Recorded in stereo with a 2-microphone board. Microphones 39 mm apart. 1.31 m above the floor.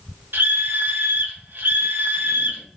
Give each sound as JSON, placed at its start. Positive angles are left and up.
{"t": 0.3, "sound": "a scream", "side_deg": -70, "distance_m": 1.1}